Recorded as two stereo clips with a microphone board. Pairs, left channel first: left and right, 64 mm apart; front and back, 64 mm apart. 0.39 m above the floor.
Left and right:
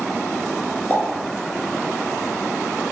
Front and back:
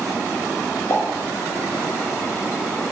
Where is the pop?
30° left, 0.6 m.